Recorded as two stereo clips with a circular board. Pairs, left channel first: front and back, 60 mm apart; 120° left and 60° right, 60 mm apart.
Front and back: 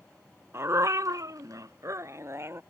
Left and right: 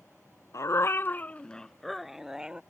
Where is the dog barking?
140° left; by 2.6 s 135° right.